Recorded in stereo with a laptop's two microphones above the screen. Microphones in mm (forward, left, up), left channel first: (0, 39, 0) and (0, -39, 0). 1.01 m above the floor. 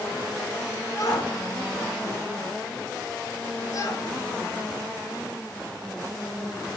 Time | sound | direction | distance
0.9 | a shout | 50° left (ahead or behind) | 3.5 m